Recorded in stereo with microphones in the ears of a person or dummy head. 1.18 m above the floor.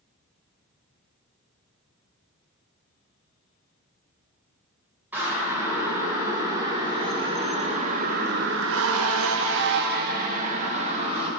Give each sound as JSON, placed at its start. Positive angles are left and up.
{"t": 5.1, "sound": "a siren", "side_deg": -10, "distance_m": 4.5}